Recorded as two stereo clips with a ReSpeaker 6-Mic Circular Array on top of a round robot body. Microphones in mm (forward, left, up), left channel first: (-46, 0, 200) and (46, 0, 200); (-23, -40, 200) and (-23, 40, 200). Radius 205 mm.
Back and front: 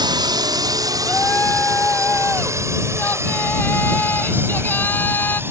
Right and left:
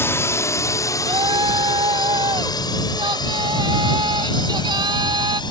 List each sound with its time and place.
0.0 s a drone: 35° right; by 5.5 s 65° right
1.0 s a shout: 110° left